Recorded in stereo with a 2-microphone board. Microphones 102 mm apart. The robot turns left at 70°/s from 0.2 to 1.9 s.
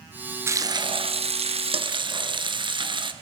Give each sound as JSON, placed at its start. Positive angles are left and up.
{"t": 0.5, "sound": "frying", "azimuth_deg": -25, "distance_m": 1.2}